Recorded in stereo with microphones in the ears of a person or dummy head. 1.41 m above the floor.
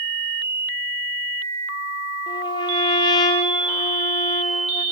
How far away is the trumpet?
About 5 m.